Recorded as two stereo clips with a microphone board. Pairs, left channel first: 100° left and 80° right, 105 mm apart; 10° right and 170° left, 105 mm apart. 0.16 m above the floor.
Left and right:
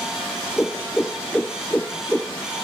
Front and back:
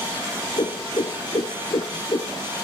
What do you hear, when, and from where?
0.6 s a whoosh: 20° left, 0.6 m